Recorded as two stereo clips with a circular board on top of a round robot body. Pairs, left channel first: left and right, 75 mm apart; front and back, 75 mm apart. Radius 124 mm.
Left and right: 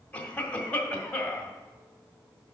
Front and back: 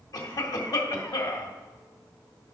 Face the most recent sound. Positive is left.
turn(degrees=20)